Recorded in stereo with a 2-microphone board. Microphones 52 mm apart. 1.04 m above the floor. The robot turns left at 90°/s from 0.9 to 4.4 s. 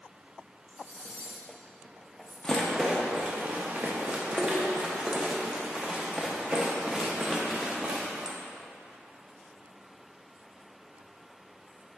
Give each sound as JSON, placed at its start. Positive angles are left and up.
{"t": 0.7, "sound": "cutlery clinking", "side_deg": 50, "distance_m": 1.2}
{"t": 2.4, "sound": "a rattle", "side_deg": 20, "distance_m": 0.5}